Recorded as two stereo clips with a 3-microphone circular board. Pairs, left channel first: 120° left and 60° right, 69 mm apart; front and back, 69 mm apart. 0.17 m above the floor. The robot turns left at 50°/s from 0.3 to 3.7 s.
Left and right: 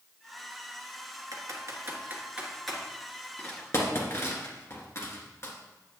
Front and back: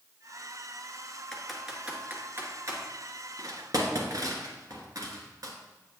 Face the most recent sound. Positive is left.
turn(degrees=160)